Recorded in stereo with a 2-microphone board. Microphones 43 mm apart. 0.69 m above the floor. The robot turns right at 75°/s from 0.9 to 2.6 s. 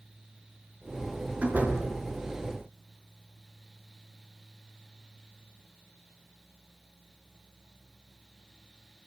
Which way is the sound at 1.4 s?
30° right (ahead or behind).